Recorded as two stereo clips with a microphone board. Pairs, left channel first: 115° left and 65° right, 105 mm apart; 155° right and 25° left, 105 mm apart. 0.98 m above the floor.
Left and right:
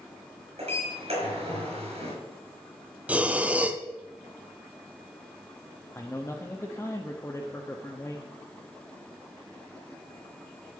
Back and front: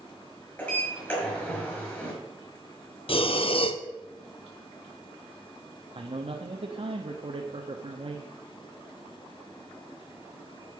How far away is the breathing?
About 0.8 m.